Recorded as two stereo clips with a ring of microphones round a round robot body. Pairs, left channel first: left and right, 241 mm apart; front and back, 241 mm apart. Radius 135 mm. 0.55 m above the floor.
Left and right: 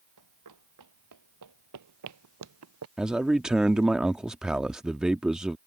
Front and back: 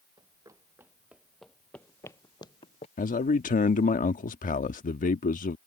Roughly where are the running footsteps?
Right.